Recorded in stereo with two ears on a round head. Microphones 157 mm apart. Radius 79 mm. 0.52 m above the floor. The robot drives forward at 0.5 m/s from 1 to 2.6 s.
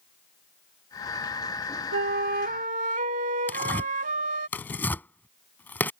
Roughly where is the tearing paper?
Centre.